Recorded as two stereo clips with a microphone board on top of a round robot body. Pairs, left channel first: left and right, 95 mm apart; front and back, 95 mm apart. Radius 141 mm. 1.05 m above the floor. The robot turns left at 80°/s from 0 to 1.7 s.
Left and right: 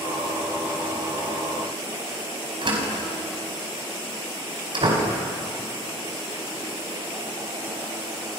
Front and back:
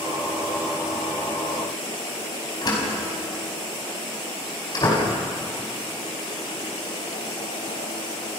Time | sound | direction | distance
2.6 | a door slam | 50° right | 5 m